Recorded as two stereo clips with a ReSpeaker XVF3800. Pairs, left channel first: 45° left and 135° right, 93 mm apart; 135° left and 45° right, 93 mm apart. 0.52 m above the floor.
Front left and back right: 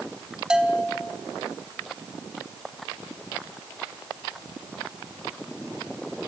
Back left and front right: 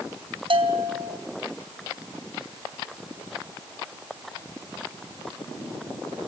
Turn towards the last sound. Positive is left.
turn(degrees=-55)